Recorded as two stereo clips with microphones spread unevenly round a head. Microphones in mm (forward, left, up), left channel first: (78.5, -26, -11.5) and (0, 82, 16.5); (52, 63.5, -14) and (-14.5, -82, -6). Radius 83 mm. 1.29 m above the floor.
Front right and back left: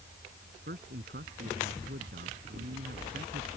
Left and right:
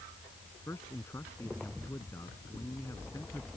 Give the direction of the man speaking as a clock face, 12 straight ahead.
7 o'clock.